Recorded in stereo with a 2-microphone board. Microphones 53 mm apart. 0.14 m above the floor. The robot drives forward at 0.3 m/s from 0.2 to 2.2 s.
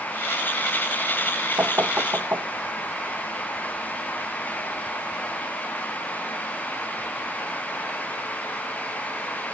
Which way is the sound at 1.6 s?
50° right (ahead or behind).